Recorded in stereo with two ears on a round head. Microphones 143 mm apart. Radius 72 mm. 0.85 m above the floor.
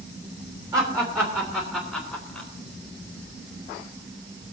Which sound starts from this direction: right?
Laughter, at 0.7 s.